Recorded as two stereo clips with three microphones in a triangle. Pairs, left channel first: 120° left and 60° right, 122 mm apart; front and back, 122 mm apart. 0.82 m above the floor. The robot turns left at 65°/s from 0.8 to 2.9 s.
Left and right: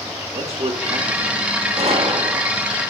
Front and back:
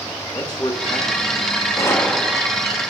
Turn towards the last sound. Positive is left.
turn(degrees=-135)